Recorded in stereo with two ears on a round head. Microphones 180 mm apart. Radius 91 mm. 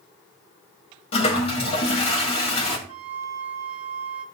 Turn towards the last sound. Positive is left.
turn(degrees=-75)  # may be behind; listen again after turning